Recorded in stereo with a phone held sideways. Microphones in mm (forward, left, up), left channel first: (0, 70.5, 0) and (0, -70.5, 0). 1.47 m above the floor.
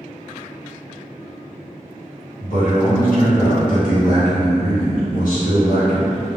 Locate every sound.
2.4 s a man speaking: 80° left, 1.1 m